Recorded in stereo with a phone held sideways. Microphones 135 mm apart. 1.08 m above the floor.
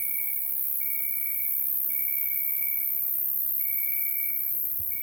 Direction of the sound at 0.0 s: 5° right (ahead or behind).